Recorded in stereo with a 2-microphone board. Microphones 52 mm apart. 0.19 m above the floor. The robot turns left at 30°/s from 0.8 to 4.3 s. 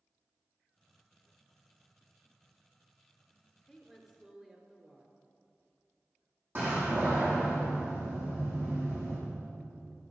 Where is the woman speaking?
Centre (ahead or behind), 3.5 m; by 5.1 s 20° right (ahead or behind), 3.5 m.